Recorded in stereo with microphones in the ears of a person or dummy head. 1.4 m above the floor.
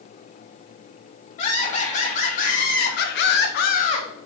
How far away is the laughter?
About 2.5 m.